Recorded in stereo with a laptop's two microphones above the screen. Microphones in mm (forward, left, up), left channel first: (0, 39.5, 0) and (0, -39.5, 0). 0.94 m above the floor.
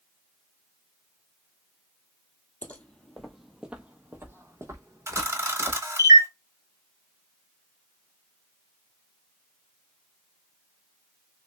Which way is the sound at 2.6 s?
20° left (ahead or behind).